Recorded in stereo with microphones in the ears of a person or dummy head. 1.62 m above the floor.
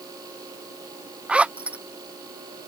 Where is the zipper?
10° right (ahead or behind).